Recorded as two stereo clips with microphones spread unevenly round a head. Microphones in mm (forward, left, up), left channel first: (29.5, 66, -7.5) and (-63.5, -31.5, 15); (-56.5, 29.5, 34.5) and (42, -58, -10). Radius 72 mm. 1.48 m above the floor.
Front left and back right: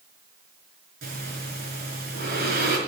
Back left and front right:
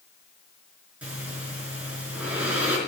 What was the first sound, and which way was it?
Breathing, 125° right.